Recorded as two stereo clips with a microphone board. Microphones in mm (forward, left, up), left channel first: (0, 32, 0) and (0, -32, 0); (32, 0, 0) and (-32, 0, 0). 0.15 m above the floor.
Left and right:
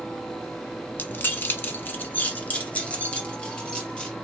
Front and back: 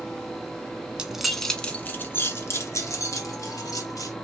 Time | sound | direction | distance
1.0 | keys jangling | 115° left | 0.9 m